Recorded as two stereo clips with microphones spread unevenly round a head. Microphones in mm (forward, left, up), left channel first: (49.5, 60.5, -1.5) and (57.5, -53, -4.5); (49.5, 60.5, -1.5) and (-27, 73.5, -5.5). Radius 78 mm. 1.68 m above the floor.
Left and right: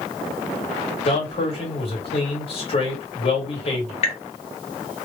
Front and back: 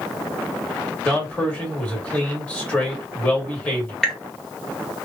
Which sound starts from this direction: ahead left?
A man speaking, at 1.1 s.